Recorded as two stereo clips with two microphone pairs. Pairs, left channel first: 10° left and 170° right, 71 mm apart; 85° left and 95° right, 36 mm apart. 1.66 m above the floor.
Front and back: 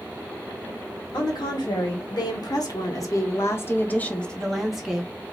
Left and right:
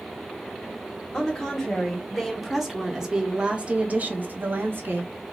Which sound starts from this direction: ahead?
A woman speaking, at 1.1 s.